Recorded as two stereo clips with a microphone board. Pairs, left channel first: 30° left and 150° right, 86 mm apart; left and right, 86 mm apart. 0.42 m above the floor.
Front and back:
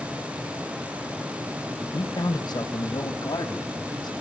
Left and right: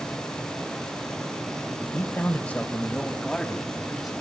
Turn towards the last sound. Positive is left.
turn(degrees=0)